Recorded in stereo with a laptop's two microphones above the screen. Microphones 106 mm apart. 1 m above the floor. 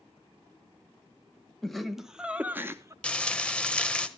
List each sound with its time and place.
1.6 s laughter: 5° left (ahead or behind), 1.0 m; by 2.9 s 30° right (ahead or behind), 0.6 m
3.0 s frying: 10° left (ahead or behind), 1.2 m